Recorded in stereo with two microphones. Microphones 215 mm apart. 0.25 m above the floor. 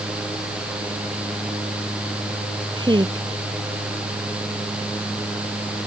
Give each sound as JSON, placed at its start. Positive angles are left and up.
{"t": 2.7, "sound": "a woman speaking", "side_deg": -20}